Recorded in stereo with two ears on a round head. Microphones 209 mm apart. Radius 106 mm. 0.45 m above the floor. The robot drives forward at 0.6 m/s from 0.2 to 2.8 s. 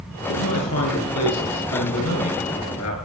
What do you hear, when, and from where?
0.3 s a man speaking: 80° left, 6.5 m